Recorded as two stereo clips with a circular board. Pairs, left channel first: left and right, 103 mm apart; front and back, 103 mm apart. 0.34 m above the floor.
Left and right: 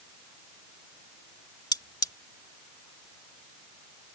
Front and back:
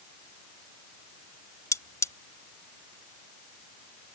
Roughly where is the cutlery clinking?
Ahead left.